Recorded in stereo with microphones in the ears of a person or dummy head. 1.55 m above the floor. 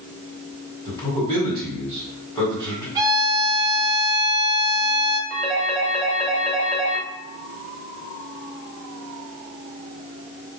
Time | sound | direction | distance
0.8 | a man speaking | 25° left (ahead or behind) | 2.5 m
3.0 | a violin | 20° right (ahead or behind) | 0.6 m
5.3 | a phone ringing | 35° left (ahead or behind) | 1.9 m